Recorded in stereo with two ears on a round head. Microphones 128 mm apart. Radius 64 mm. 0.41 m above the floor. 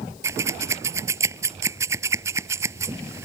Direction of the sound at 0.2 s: 20° right (ahead or behind).